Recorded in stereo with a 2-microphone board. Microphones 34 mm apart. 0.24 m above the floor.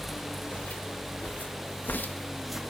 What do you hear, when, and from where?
0.5 s footsteps: 55° left (ahead or behind), 2.5 m; by 2.6 s 10° right (ahead or behind), 0.8 m